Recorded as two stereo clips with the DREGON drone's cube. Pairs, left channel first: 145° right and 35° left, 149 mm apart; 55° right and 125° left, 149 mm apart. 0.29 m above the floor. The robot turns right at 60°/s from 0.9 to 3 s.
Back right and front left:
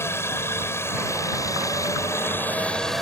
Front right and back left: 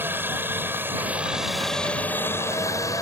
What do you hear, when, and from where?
0.0 s a helicopter: 175° left; by 3.0 s 60° right